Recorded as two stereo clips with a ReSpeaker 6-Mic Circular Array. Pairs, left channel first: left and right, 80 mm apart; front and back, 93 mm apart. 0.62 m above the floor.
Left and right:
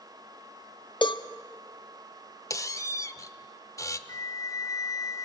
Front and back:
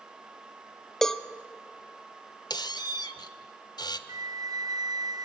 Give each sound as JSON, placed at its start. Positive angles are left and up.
{"t": 1.0, "sound": "a cowbell", "azimuth_deg": 85, "distance_m": 0.7}
{"t": 2.5, "sound": "a squeak", "azimuth_deg": 40, "distance_m": 0.9}
{"t": 4.1, "sound": "a flute", "azimuth_deg": 135, "distance_m": 0.6}